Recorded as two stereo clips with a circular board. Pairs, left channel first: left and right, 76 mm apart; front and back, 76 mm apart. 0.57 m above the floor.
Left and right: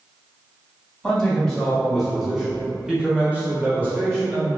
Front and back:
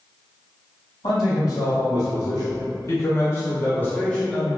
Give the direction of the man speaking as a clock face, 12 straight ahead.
12 o'clock.